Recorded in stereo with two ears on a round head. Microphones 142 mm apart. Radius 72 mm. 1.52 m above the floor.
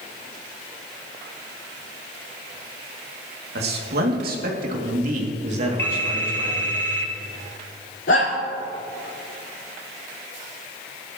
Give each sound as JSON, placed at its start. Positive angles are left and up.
{"t": 3.5, "sound": "a man speaking", "side_deg": -75, "distance_m": 2.5}
{"t": 5.8, "sound": "a phone ringing", "side_deg": 15, "distance_m": 3.0}
{"t": 8.1, "sound": "a shout", "side_deg": 85, "distance_m": 4.5}